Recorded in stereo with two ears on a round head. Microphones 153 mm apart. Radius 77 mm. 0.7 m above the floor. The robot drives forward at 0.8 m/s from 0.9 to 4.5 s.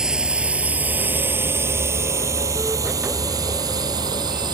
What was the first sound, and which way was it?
A drone, 5° right (ahead or behind).